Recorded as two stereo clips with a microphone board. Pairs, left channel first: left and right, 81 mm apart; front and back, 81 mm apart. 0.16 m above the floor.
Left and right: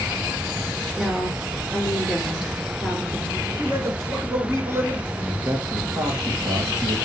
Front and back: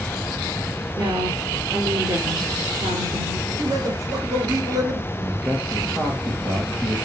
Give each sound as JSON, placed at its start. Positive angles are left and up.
{"t": 1.0, "sound": "a woman speaking", "azimuth_deg": -175, "distance_m": 2.5}
{"t": 3.5, "sound": "a man speaking", "azimuth_deg": -145, "distance_m": 3.0}
{"t": 5.1, "sound": "a man speaking", "azimuth_deg": -125, "distance_m": 3.0}